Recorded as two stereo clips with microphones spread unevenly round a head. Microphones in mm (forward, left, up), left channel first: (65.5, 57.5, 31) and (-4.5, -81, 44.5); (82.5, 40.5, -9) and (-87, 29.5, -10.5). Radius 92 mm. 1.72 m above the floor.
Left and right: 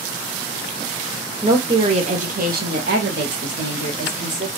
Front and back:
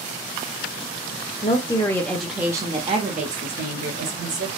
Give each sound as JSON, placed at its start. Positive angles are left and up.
{"t": 1.4, "sound": "a woman speaking", "azimuth_deg": -55, "distance_m": 0.9}